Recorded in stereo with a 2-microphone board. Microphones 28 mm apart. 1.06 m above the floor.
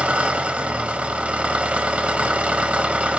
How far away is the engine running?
About 1.2 m.